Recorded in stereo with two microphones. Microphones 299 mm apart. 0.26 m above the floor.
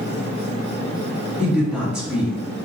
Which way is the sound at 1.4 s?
5° right (ahead or behind).